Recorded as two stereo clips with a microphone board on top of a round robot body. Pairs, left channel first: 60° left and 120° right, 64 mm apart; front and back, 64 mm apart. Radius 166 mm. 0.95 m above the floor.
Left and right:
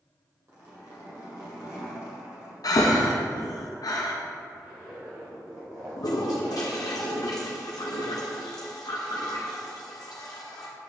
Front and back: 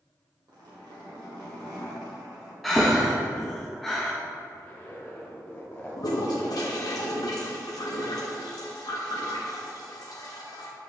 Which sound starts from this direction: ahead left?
A toilet flushing, at 6.0 s.